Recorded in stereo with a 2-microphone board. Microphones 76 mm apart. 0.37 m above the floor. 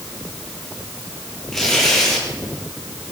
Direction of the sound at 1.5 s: 5° left (ahead or behind).